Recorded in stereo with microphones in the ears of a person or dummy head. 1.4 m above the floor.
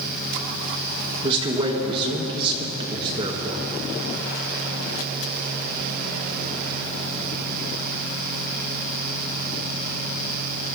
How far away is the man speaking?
About 0.9 m.